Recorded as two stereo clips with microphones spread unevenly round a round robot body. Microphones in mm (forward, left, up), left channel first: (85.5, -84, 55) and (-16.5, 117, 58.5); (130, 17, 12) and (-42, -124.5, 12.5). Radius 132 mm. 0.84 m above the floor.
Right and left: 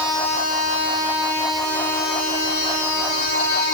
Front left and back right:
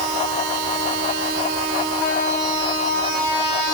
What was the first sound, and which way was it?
Only background noise.